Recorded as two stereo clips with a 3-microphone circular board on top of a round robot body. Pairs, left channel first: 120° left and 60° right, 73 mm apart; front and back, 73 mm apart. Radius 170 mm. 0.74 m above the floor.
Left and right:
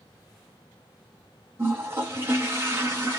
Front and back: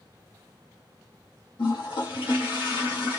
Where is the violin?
I don't hear a violin.